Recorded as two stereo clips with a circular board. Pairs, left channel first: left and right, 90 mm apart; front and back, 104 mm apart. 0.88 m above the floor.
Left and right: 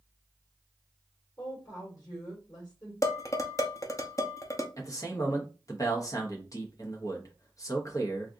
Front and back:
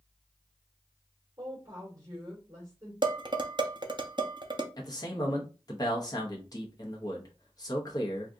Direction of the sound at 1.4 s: 130° left.